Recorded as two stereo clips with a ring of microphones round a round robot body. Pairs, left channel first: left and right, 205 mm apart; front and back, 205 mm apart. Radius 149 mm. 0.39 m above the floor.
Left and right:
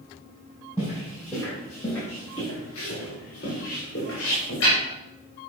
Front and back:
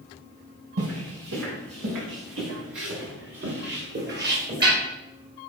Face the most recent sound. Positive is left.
turn(degrees=140)